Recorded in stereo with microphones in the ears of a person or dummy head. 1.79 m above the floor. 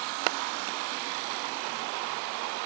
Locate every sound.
Only background noise.